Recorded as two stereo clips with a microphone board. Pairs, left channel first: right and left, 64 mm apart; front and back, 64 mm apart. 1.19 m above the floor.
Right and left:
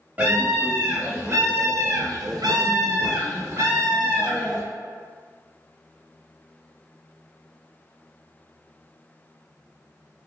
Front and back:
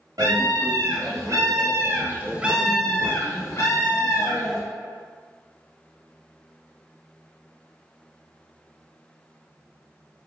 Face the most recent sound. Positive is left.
turn(degrees=25)